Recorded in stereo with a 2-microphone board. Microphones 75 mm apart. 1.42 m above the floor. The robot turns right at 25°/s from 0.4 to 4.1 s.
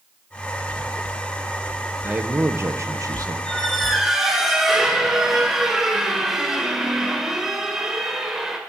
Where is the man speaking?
155° right, 0.9 m; by 3.4 s 125° right, 0.9 m.